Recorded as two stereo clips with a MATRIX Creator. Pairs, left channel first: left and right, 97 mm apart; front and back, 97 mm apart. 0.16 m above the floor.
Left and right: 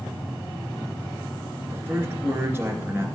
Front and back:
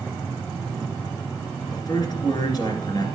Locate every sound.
1.7 s a man speaking: 30° right, 1.9 m